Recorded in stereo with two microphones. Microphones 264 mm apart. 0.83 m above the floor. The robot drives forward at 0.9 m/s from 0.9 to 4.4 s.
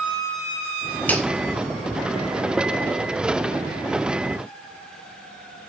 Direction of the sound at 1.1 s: 5° left (ahead or behind).